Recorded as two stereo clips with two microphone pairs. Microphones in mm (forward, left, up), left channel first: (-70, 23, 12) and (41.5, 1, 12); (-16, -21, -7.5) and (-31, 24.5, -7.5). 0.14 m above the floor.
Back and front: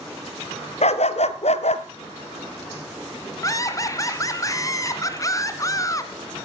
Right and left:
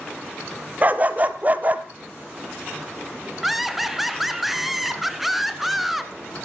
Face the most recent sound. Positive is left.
turn(degrees=-170)